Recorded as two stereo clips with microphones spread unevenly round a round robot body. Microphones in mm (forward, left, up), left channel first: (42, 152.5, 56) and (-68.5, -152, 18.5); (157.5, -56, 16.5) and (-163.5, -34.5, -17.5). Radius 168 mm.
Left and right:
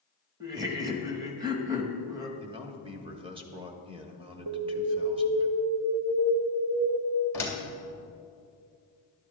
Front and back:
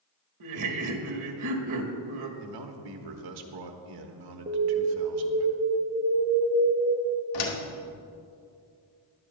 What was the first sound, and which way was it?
Laughter, 175° left.